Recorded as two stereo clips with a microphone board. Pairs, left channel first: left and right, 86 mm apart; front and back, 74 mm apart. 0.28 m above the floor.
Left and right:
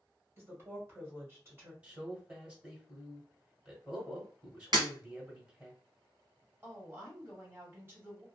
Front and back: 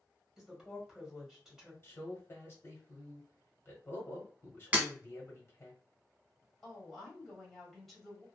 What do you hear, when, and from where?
0.4 s a woman speaking: 100° right, 1.3 m
1.8 s a man speaking: 30° right, 1.1 m
4.7 s breaking glass: 115° right, 1.1 m
6.6 s a woman speaking: 85° right, 1.5 m